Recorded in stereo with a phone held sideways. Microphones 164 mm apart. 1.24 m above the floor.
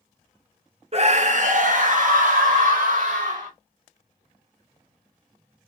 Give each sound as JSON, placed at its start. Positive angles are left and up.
{"t": 0.9, "sound": "a scream", "side_deg": -40, "distance_m": 0.6}